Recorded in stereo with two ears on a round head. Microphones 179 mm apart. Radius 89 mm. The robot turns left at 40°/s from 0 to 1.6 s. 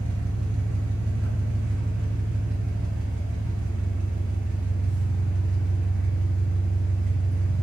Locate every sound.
0.0 s an engine running: 60° right, 0.8 m; by 7.6 s 125° right, 0.8 m